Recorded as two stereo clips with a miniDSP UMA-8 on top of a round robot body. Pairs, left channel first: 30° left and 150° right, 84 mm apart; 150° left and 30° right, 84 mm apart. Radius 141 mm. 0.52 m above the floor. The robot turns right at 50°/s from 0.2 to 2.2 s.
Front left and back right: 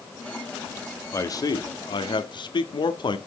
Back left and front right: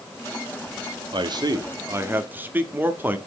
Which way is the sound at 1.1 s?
20° right.